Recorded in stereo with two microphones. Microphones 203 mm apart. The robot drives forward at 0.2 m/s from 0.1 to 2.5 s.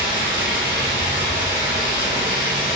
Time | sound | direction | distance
0.0 | running water | 25° left (ahead or behind) | 2.0 m